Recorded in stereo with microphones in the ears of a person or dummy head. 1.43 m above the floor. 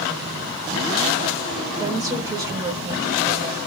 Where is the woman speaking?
15° right (ahead or behind), 0.9 m.